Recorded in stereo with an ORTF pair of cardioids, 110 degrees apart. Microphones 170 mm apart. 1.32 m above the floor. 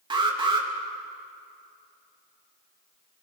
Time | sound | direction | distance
0.1 | an alarm | 30° right | 3 m